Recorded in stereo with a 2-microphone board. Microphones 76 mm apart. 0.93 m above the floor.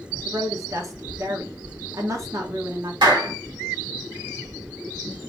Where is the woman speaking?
45° right (ahead or behind), 0.9 m.